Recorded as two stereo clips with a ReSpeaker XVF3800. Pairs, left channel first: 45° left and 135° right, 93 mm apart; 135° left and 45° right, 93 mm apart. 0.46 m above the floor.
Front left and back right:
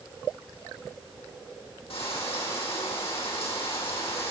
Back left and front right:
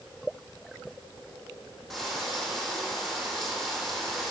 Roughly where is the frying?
Ahead left.